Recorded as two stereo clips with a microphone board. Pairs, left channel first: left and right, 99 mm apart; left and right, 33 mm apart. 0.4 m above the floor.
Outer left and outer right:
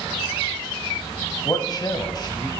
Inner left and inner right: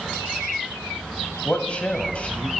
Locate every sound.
1.4 s a man speaking: 45° left (ahead or behind), 1.7 m